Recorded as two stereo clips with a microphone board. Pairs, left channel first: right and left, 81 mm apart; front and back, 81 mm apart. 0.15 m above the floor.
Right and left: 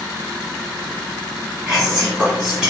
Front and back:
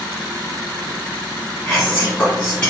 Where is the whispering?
30° left, 1.4 m.